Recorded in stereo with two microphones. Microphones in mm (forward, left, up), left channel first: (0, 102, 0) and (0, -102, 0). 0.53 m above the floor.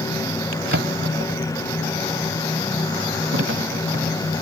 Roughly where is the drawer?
Right.